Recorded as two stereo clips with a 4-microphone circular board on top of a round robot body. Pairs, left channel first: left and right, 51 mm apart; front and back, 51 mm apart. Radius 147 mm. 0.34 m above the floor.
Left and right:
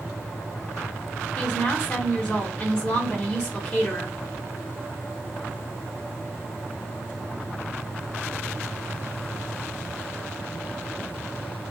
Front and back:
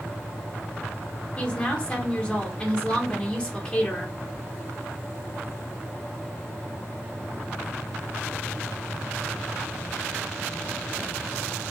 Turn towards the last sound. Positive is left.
turn(degrees=45)